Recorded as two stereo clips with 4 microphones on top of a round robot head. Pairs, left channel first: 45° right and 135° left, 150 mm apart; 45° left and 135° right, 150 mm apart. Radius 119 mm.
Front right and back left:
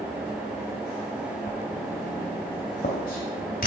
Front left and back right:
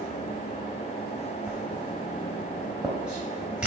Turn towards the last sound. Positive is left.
turn(degrees=-55)